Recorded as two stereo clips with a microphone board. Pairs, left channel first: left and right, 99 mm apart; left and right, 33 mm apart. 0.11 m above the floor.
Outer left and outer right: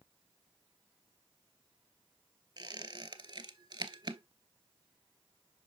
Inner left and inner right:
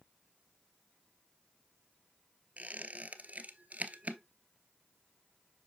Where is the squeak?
45° right (ahead or behind), 0.8 m.